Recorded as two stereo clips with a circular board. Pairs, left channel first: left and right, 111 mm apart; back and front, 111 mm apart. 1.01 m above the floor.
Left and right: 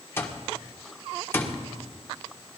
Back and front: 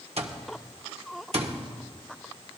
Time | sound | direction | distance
0.2 | an alarm clock | 20° left | 1.3 m